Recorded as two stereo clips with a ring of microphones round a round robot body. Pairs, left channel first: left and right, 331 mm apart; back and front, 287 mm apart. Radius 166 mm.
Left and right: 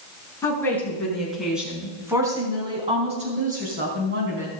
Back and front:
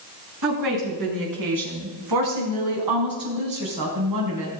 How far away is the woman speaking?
About 5 m.